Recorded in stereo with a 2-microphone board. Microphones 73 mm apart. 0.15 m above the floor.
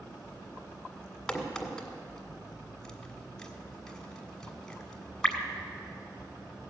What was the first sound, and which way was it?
A crack, 10° left (ahead or behind).